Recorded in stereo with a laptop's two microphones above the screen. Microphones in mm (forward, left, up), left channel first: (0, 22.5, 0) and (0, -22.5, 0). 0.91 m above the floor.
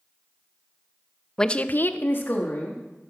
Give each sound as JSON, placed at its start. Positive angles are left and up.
{"t": 1.4, "sound": "a woman speaking", "side_deg": 10, "distance_m": 0.6}